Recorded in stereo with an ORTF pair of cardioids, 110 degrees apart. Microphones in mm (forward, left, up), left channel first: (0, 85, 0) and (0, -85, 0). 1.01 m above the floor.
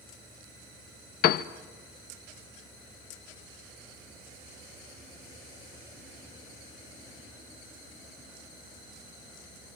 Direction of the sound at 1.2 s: 70° left.